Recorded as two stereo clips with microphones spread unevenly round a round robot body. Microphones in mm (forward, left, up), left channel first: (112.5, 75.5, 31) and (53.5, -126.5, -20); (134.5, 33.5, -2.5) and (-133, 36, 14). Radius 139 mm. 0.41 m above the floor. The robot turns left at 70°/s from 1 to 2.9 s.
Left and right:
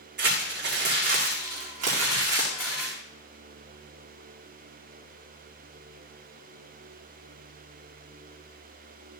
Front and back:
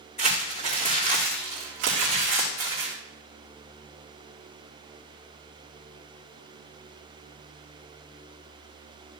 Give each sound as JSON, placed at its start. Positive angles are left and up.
{"t": 0.2, "sound": "crumpling", "azimuth_deg": -70, "distance_m": 5.0}